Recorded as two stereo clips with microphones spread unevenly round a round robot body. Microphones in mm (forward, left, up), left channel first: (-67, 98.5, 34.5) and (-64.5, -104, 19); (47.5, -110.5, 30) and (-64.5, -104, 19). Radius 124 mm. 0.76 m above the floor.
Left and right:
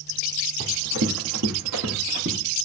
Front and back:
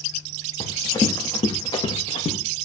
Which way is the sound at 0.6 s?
60° right.